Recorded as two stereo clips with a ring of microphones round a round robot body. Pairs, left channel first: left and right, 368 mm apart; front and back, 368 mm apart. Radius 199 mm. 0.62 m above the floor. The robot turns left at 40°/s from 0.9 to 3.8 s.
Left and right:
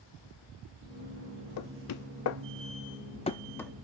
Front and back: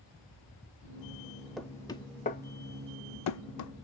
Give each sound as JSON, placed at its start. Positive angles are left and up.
{"t": 1.6, "sound": "knocking", "azimuth_deg": 90, "distance_m": 0.5}